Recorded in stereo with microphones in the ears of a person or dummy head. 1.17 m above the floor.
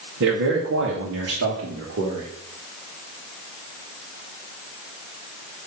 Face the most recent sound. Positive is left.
turn(degrees=-65)  # may be behind; listen again after turning